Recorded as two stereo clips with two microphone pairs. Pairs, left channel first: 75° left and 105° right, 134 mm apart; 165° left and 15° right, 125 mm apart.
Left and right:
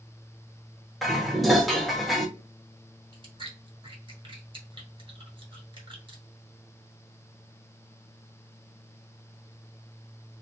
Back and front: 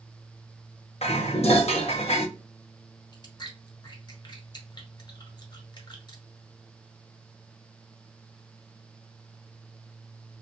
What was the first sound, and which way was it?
Dishes clattering, 165° left.